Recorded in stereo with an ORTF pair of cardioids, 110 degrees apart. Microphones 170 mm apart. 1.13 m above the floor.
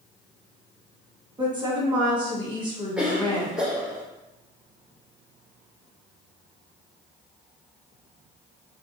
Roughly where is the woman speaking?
Ahead right.